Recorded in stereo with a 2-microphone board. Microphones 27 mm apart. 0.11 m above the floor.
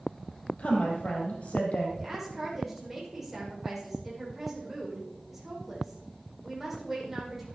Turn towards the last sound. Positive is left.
turn(degrees=-10)  # may be behind; listen again after turning